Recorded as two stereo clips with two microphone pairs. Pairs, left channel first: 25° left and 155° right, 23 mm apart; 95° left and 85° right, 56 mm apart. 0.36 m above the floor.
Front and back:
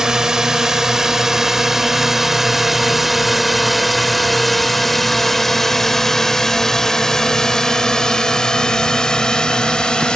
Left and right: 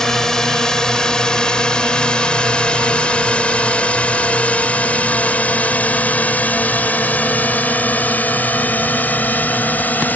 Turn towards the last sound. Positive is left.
turn(degrees=50)